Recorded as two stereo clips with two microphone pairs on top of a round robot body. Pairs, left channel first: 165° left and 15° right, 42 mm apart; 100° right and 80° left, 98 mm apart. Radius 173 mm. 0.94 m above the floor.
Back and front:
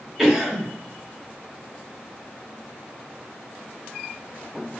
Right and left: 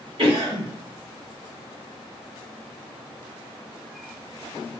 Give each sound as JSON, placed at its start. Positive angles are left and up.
{"t": 0.2, "sound": "a cough", "azimuth_deg": 70, "distance_m": 1.6}